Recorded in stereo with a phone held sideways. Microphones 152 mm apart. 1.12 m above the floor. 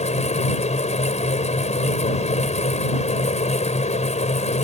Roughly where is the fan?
Left.